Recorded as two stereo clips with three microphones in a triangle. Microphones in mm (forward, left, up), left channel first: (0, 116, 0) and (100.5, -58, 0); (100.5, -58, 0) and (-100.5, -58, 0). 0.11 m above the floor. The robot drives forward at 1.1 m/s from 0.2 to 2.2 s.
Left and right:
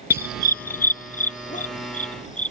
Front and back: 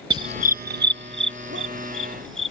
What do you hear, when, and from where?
0.1 s a dog barking: 120° left; by 2.5 s 170° left